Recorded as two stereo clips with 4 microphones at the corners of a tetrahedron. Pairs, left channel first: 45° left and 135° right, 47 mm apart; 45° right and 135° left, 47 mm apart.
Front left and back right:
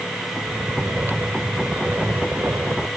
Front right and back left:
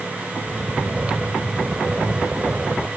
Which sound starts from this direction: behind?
Snoring, at 0.5 s.